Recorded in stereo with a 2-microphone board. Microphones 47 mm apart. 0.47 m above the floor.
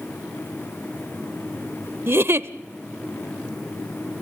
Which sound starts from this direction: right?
A giggle, at 2.1 s.